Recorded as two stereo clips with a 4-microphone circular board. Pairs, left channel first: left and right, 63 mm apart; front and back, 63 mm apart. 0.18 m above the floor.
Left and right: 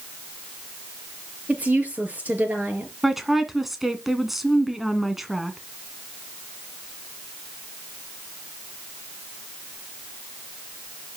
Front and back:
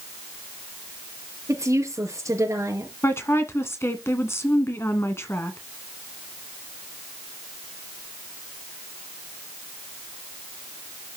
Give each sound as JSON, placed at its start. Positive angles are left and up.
{"t": 1.5, "sound": "a woman speaking", "azimuth_deg": -155, "distance_m": 4.0}
{"t": 3.0, "sound": "a woman speaking", "azimuth_deg": -5, "distance_m": 1.9}